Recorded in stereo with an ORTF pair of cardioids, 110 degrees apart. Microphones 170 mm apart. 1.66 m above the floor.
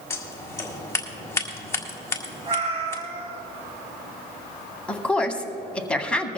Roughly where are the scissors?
Ahead.